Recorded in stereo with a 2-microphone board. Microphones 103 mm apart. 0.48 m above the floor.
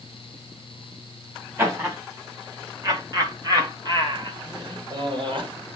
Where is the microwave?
No microwave in this recording.